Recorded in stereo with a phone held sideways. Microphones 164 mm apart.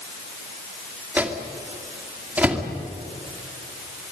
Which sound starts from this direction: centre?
A microwave, at 1.2 s.